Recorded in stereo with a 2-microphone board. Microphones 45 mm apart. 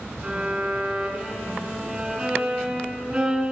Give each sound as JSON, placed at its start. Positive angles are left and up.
{"t": 0.2, "sound": "a violin", "side_deg": -20, "distance_m": 4.5}